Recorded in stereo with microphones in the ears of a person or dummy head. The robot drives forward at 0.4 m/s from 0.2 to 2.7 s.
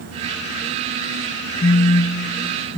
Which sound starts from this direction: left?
A phone buzzing, at 1.6 s.